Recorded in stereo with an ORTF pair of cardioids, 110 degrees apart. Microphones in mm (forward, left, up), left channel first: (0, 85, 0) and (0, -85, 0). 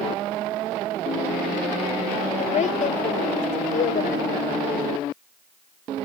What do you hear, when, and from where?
2.4 s a woman speaking: 45° left; by 5.0 s 65° left